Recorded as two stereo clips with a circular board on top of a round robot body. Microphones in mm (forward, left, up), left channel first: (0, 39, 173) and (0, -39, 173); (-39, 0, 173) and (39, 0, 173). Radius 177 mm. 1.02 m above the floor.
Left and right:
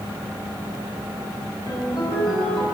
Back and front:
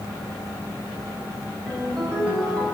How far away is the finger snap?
No finger snap in this recording.